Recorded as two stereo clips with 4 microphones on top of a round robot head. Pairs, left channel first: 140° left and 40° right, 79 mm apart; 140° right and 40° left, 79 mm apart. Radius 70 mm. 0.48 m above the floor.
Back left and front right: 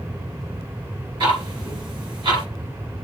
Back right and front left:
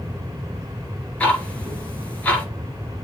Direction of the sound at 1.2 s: 65° right.